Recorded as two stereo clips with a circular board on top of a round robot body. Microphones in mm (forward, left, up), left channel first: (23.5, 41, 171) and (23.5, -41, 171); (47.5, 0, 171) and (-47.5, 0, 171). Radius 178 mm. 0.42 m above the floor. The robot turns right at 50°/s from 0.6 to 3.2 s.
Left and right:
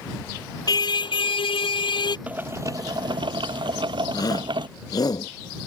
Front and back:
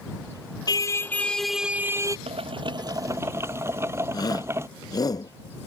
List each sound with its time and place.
0.7 s a car horn: 50° left; by 2.2 s 125° left
2.3 s boiling: 165° right; by 4.7 s 115° right
4.1 s a shout: 50° left